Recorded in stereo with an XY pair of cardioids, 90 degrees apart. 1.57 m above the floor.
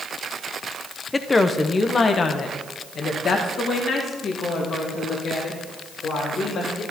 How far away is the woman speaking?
About 1.1 m.